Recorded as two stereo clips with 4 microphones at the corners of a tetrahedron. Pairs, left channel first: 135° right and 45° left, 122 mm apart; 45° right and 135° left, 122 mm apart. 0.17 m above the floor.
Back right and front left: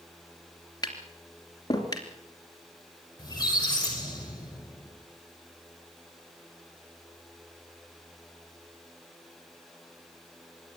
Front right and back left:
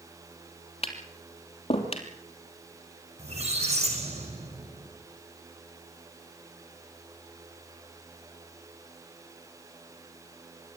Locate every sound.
0.8 s tapping: 80° right, 3 m
3.2 s a squeak: 165° left, 5 m